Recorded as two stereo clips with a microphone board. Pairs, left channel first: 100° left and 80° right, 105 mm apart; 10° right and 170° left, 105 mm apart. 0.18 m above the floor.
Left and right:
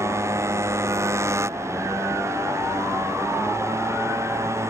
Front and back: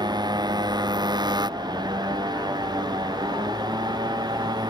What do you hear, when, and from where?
0.0 s a motorcycle: 140° right